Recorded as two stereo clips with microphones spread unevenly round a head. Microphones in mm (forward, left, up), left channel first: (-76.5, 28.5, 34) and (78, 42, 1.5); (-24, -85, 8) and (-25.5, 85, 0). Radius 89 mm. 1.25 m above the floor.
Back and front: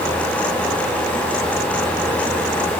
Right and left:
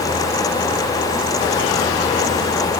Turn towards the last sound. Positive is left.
No sound to turn to.